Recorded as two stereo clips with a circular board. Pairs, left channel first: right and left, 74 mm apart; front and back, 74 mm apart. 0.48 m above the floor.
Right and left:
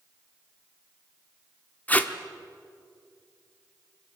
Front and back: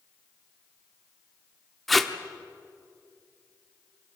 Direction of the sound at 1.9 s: 90° right.